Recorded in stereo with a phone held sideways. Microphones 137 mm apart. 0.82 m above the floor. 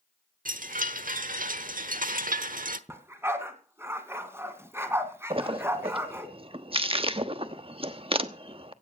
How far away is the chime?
About 1.1 m.